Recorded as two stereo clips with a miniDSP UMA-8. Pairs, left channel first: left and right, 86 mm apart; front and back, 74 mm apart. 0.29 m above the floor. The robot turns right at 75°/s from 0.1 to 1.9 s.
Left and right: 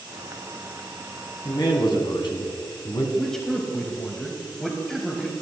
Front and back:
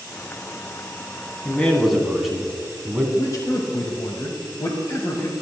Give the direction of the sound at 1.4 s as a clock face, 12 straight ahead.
10 o'clock.